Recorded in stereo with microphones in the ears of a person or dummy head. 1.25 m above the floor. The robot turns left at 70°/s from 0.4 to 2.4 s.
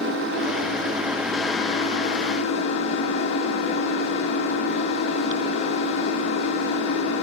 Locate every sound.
0.0 s an engine running: 110° right, 1.5 m; by 7.2 s 110° left, 1.5 m